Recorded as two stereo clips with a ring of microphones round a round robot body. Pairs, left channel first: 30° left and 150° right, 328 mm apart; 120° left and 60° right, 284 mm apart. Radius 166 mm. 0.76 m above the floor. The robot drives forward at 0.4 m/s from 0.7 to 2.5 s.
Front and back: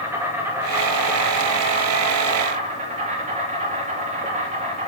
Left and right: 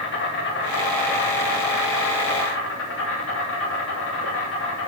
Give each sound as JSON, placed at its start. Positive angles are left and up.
{"t": 0.0, "sound": "an insect", "azimuth_deg": 130, "distance_m": 2.0}